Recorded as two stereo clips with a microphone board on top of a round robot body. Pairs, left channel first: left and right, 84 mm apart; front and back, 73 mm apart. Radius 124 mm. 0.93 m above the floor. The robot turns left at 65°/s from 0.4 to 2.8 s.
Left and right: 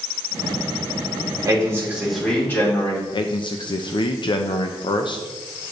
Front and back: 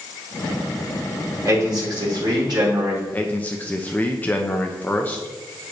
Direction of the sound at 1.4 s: 135° right.